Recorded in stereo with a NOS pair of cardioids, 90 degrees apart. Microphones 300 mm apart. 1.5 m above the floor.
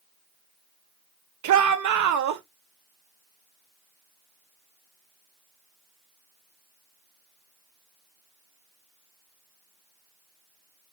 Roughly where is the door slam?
No door slam in this recording.